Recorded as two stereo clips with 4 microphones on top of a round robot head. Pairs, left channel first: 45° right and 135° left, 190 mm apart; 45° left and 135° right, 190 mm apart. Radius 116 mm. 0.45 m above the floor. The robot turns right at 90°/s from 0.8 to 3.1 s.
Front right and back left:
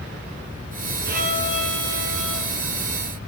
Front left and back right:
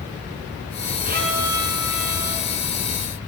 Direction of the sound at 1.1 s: 175° left.